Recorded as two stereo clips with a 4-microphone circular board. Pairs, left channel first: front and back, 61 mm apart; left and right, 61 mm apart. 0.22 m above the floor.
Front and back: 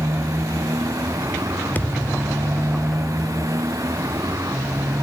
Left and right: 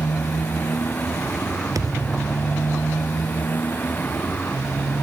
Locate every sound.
0.0 s a motorcycle: 150° left
1.8 s a thud: 65° right